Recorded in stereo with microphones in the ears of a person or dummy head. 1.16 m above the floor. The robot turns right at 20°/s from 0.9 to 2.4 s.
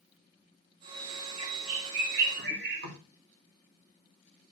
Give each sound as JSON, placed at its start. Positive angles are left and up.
{"t": 1.4, "sound": "a bird", "side_deg": -80, "distance_m": 1.9}